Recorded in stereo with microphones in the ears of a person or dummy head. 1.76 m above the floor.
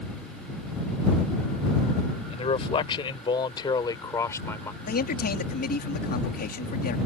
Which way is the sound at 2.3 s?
35° left (ahead or behind).